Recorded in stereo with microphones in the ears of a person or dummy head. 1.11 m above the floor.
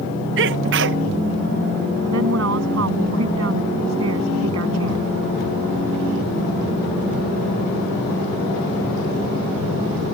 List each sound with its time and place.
0.4 s a sneeze: 60° right (ahead or behind)
2.1 s a woman speaking: 80° right